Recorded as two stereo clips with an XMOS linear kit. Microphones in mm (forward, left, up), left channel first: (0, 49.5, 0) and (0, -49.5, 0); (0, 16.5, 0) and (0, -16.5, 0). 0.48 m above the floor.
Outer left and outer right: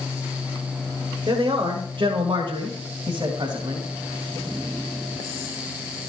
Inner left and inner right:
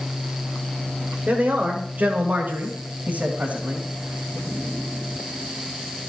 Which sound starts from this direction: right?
A man speaking, at 1.3 s.